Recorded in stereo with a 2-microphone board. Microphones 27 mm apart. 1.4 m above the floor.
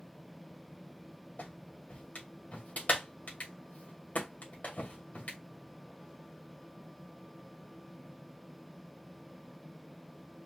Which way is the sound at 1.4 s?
75° left (ahead or behind).